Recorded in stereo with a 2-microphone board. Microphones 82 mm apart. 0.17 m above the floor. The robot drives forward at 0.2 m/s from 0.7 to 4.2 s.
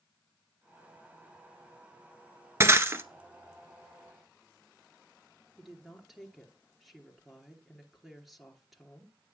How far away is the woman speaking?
About 2.5 m.